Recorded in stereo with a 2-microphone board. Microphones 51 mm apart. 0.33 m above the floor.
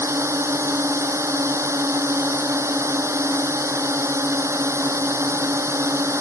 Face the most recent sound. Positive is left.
turn(degrees=-65)  # may be behind; listen again after turning